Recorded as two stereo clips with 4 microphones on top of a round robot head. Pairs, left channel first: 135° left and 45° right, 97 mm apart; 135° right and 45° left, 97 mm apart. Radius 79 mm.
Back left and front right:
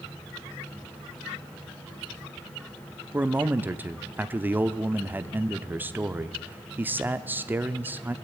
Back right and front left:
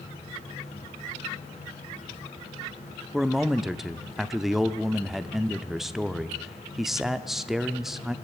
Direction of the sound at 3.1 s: 35° right.